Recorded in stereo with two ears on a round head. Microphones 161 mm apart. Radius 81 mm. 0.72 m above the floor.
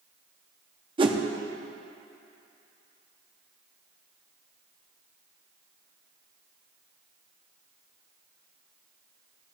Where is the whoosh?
30° right (ahead or behind), 0.8 m.